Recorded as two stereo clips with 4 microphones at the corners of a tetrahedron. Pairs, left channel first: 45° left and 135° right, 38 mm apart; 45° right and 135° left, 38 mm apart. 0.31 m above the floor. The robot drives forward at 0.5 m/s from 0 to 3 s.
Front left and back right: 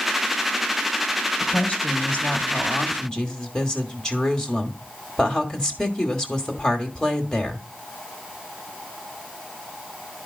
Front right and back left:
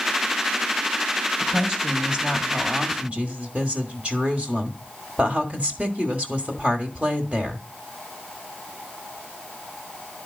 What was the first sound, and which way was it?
A woman speaking, 65° left.